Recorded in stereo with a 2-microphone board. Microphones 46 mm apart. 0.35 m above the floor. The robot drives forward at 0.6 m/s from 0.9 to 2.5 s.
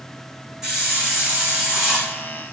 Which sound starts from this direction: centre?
A hiss, at 0.6 s.